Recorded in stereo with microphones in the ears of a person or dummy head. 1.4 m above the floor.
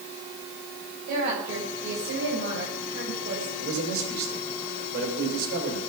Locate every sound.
1.1 s a woman speaking: 50° right (ahead or behind), 7 m; by 3.5 s 75° right (ahead or behind), 6.5 m
3.6 s a man speaking: 55° right (ahead or behind), 4.5 m